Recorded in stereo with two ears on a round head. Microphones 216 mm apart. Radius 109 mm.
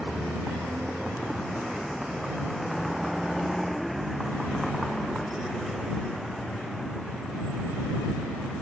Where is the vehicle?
Centre (ahead or behind).